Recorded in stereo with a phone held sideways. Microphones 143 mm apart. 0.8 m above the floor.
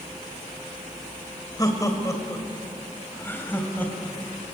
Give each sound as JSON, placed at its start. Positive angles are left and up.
{"t": 1.6, "sound": "laughter", "side_deg": 25, "distance_m": 3.0}